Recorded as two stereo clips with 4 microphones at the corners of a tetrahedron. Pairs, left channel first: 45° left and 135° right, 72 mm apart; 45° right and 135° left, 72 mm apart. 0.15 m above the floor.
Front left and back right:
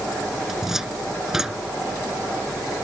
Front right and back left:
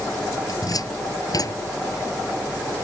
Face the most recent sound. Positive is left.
turn(degrees=-55)